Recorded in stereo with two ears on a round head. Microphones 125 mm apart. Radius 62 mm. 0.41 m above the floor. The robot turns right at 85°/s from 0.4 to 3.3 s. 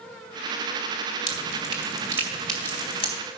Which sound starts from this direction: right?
Dripping, at 1.3 s.